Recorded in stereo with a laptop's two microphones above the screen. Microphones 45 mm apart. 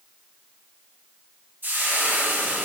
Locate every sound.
1.6 s frying: 50° right (ahead or behind), 2.5 m